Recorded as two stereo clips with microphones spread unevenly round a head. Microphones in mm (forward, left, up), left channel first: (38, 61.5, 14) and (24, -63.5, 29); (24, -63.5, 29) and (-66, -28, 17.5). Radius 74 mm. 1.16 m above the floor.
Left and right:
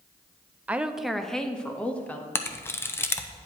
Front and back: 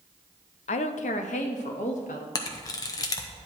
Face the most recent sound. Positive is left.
turn(degrees=30)